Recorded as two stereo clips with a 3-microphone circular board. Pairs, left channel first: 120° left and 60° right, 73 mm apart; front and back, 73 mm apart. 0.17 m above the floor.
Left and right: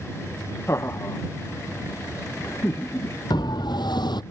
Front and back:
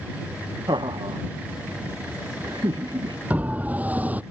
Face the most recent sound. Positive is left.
turn(degrees=110)